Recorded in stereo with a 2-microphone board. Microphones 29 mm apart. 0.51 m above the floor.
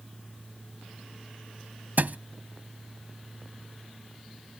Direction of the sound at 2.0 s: 75° right (ahead or behind).